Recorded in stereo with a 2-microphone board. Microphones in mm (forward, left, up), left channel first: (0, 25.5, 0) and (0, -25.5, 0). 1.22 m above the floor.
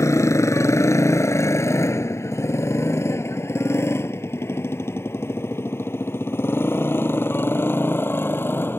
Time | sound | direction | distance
0.0 | a motorcycle | 85° left | ?